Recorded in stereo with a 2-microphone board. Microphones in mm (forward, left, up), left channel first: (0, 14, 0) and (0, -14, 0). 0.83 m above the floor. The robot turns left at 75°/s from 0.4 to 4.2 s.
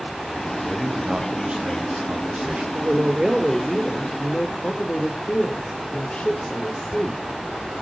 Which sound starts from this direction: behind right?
A woman speaking, at 2.7 s.